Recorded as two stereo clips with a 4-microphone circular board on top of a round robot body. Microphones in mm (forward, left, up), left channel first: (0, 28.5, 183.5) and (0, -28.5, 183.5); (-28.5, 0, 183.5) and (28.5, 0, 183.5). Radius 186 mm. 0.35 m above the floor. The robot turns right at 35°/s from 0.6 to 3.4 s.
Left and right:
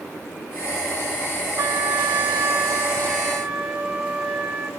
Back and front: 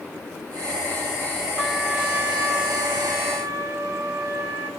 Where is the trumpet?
80° right, 3 m; by 4.7 s 15° right, 3 m.